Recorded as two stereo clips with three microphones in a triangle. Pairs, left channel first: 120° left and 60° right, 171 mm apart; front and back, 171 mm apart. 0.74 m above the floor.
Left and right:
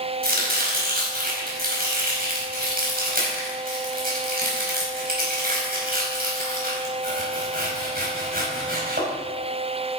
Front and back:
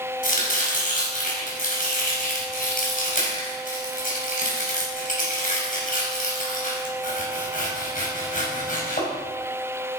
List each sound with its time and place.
0.2 s chopping: 35° right, 5 m